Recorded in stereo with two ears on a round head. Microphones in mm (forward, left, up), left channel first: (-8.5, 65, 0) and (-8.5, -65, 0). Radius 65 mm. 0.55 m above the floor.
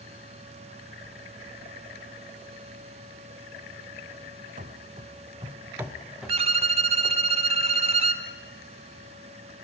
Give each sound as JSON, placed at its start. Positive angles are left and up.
{"t": 4.6, "sound": "running footsteps", "side_deg": -55, "distance_m": 1.8}
{"t": 6.3, "sound": "a violin", "side_deg": -45, "distance_m": 1.3}